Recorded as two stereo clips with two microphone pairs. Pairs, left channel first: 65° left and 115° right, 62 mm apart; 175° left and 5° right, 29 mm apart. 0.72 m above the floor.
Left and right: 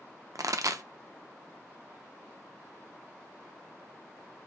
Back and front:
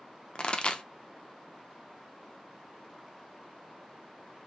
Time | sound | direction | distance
0.3 | a pop | 135° right | 0.5 m